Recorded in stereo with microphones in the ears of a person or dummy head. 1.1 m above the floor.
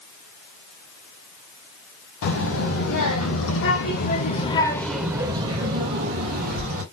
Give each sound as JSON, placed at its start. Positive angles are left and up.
{"t": 2.2, "sound": "a child speaking", "side_deg": 85, "distance_m": 1.6}